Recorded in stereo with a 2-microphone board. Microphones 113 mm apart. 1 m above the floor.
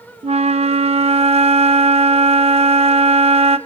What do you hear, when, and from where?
0.2 s a flute: 65° right (ahead or behind), 0.6 m